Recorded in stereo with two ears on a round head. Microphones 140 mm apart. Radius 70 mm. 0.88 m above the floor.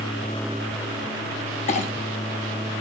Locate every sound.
1.7 s a clink: 45° left (ahead or behind), 0.9 m